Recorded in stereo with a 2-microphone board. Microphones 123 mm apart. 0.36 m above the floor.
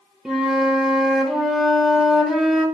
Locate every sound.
0.2 s a flute: 5° right (ahead or behind), 1.0 m